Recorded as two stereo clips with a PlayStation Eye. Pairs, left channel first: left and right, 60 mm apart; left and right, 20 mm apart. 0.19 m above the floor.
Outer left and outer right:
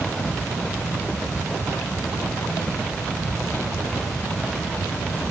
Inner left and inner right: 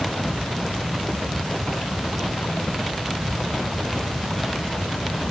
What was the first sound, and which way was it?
Only background noise.